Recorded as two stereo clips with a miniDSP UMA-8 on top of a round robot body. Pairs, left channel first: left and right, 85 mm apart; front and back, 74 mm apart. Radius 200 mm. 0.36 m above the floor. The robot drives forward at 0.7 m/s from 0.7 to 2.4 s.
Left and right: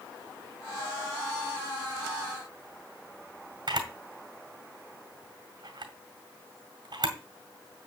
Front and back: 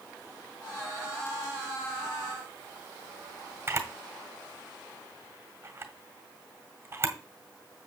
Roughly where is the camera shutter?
Behind right.